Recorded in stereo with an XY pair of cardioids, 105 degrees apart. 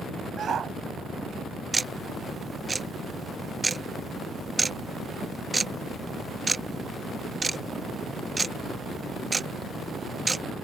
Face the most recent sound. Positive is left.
turn(degrees=-20)